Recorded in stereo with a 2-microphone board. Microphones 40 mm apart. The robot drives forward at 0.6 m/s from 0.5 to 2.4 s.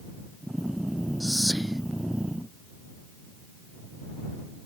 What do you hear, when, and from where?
1.2 s whispering: 5° right (ahead or behind); by 1.8 s centre (ahead or behind)